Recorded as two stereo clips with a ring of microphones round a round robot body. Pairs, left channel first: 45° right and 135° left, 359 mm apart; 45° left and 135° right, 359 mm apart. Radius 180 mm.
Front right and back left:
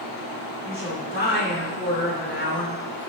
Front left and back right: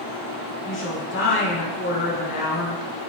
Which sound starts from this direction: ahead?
A woman speaking, at 0.6 s.